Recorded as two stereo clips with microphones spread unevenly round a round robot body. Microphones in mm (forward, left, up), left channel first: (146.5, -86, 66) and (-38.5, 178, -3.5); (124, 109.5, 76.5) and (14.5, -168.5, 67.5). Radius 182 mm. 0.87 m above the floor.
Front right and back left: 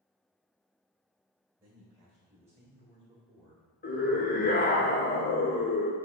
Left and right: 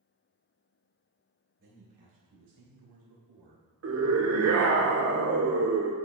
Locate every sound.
1.6 s a man speaking: 170° right, 3 m; by 3.7 s 155° right, 1.7 m
3.8 s a scream: 125° right, 1.3 m